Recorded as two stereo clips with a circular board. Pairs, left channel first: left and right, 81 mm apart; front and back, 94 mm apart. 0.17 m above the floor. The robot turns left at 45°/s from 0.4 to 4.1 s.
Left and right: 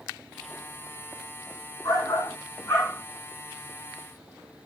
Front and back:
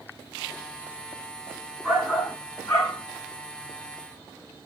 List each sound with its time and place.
1.8 s a shout: 85° left, 2 m; by 3.0 s 35° left, 2 m